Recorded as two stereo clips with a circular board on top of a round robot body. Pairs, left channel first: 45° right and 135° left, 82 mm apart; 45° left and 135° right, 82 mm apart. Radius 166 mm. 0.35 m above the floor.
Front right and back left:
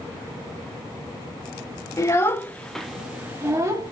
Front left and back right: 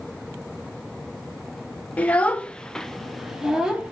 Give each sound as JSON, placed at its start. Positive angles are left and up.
{"t": 2.0, "sound": "a child speaking", "azimuth_deg": -20, "distance_m": 0.9}